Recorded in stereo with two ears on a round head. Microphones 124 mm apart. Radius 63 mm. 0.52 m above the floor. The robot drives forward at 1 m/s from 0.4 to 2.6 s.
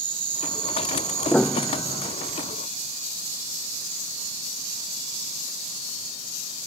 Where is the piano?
5° left (ahead or behind).